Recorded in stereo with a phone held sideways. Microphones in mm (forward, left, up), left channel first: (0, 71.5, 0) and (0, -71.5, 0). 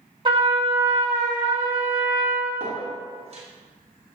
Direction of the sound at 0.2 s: 35° right (ahead or behind).